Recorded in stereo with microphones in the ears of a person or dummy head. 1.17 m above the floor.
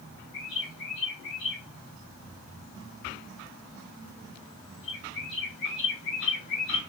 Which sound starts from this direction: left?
A bird, at 0.3 s.